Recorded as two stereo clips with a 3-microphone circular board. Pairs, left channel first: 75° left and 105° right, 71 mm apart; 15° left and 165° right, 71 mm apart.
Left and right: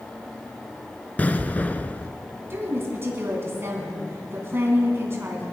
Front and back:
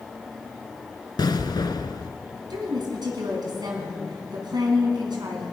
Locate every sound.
1.2 s an explosion: 5° left, 0.7 m
2.5 s a woman speaking: 160° right, 3 m